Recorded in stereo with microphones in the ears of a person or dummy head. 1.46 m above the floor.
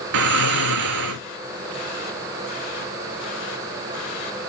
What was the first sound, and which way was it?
Snoring, 70° right (ahead or behind).